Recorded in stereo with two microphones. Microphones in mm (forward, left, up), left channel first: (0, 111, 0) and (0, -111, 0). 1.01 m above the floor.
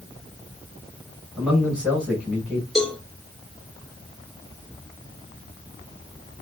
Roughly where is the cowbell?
Centre.